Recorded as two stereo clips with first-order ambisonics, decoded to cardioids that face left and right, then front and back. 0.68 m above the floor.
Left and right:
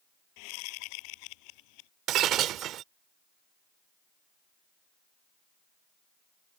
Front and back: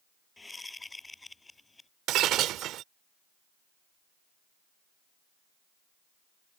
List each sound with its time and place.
0.4 s a whoosh: 80° left
2.1 s breaking glass: 135° right